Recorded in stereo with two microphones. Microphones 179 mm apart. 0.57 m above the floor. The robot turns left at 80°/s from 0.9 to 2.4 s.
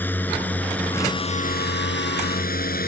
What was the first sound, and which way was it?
A drone, 10° left (ahead or behind).